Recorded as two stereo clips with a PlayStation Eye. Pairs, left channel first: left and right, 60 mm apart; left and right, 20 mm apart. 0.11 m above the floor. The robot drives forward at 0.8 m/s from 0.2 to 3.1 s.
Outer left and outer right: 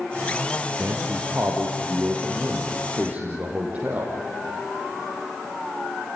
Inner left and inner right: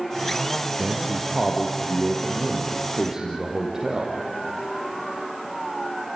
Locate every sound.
0.8 s a man speaking: 40° right (ahead or behind), 2.5 m; by 4.2 s 25° right (ahead or behind), 4 m